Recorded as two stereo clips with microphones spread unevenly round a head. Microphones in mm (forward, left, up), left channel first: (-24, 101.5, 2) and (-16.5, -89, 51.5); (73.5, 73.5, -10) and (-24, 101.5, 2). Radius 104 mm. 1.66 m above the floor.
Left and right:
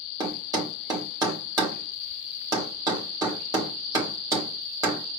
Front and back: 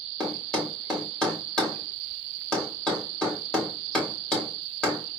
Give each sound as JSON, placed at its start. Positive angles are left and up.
{"t": 0.2, "sound": "a thud", "azimuth_deg": -105, "distance_m": 1.2}